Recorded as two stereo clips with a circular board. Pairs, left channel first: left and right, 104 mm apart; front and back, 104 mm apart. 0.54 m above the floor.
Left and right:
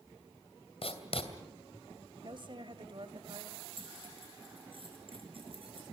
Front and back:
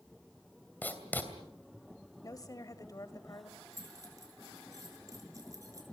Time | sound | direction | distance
0.8 | writing | 70° left | 2.5 m
2.2 | a woman speaking | 55° right | 2 m
3.7 | keys jangling | 120° right | 6 m